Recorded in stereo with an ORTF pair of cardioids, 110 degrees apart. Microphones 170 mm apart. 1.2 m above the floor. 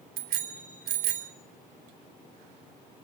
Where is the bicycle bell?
65° right, 3 m.